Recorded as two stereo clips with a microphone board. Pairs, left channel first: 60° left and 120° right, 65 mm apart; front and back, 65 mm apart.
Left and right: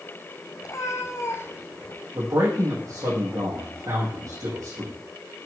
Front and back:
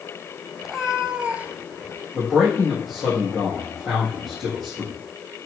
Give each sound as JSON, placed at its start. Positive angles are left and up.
{"t": 0.6, "sound": "a cat meowing", "azimuth_deg": 95, "distance_m": 1.2}
{"t": 2.1, "sound": "a man speaking", "azimuth_deg": -90, "distance_m": 4.5}